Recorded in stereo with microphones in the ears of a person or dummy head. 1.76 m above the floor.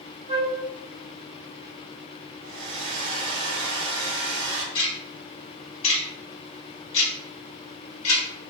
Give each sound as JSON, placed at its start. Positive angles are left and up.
{"t": 0.3, "sound": "a flute", "side_deg": -25, "distance_m": 1.3}
{"t": 2.4, "sound": "a hair dryer", "side_deg": -65, "distance_m": 1.1}
{"t": 4.8, "sound": "ticking", "side_deg": 35, "distance_m": 2.0}